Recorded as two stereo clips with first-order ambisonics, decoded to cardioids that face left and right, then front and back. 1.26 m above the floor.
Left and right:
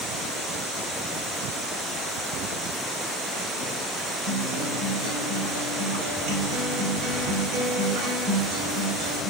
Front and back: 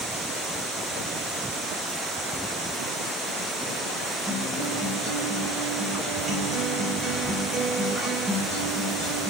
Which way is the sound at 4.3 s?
90° right.